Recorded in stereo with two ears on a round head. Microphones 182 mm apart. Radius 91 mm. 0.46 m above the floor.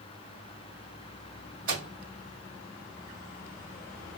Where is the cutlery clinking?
I don't hear cutlery clinking.